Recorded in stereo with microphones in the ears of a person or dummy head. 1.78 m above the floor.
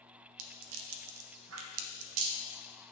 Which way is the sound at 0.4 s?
75° right (ahead or behind).